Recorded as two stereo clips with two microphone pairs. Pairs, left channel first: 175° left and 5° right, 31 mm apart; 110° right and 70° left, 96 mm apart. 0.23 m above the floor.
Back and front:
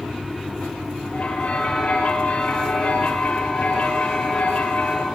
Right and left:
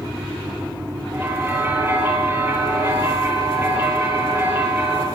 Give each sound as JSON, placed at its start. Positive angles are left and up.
{"t": 1.1, "sound": "a bell", "azimuth_deg": 135, "distance_m": 6.5}